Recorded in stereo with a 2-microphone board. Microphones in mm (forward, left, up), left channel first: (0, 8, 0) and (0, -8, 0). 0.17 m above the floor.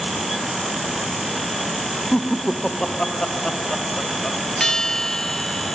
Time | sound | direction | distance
2.1 | laughter | 75° left (ahead or behind) | ?
4.6 | a bell | 45° left (ahead or behind) | ?